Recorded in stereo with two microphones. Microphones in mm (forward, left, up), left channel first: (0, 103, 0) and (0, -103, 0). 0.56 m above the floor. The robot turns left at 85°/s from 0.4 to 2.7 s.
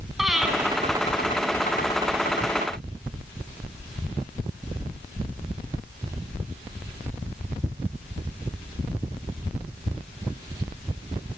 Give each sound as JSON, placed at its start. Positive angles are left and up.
{"t": 0.2, "sound": "breathing", "side_deg": 0, "distance_m": 3.5}